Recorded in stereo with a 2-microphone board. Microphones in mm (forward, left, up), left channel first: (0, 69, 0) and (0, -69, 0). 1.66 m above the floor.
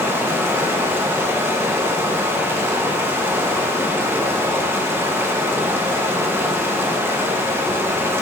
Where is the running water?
15° right (ahead or behind), 1.0 m.